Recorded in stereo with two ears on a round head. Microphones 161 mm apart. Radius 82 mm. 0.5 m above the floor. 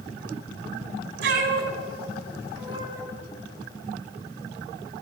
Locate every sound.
1.2 s a cat meowing: 65° right (ahead or behind), 1.9 m; by 3.0 s 15° right (ahead or behind), 1.7 m